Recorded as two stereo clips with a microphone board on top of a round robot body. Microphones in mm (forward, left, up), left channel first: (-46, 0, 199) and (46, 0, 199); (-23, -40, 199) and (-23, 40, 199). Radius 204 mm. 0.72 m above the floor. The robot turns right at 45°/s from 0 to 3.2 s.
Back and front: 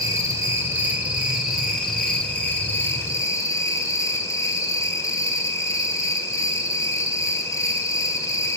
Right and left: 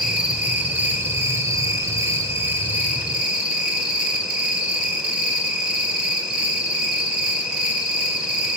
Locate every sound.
0.0 s an insect: 15° left, 1.7 m; by 8.6 s 160° left, 1.7 m